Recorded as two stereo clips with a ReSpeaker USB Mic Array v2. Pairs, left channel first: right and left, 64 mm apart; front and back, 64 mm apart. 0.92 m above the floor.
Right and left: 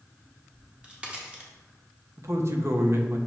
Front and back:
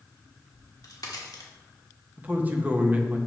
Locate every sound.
0.5 s a crack: 15° left, 1.1 m
2.2 s a man speaking: 120° left, 0.8 m